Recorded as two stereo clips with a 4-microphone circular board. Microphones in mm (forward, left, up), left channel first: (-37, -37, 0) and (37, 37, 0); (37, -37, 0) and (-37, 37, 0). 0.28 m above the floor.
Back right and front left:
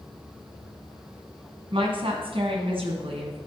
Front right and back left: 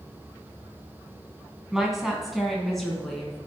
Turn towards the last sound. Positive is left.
turn(degrees=40)